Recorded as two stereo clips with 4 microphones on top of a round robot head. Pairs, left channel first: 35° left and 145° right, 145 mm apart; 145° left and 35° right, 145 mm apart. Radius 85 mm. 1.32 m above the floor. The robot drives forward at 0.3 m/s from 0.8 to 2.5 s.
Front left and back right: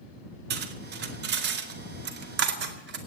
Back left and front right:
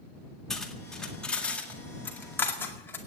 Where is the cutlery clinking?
130° right, 1.8 m; by 3.0 s 140° right, 2 m.